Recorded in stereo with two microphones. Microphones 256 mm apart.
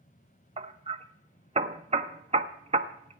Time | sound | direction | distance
0.6 | hammering | 25° right (ahead or behind) | 0.8 m